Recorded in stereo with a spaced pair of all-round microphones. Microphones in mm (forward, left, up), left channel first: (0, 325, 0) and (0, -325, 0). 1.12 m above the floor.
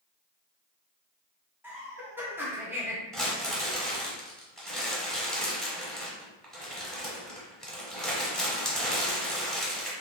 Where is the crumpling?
Centre (ahead or behind), 1.0 m.